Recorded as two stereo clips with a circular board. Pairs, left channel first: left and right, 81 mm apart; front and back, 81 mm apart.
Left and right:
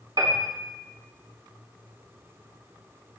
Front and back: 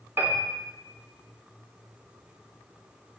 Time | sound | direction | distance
0.2 | a piano | 120° right | 2.5 m